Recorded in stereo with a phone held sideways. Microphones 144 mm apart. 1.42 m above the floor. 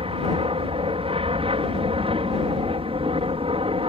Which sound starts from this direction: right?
An aircraft, at 0.0 s.